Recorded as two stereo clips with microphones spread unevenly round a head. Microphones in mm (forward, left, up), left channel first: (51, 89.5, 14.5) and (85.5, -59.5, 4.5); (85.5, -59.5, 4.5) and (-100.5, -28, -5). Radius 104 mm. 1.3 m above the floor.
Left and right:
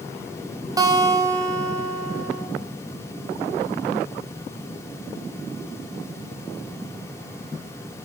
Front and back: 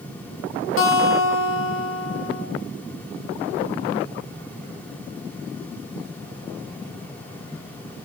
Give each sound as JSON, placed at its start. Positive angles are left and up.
{"t": 0.8, "sound": "a guitar", "azimuth_deg": -10, "distance_m": 1.1}